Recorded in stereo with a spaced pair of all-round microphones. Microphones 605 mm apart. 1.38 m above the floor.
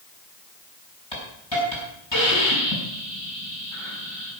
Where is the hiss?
45° left (ahead or behind), 5.5 m.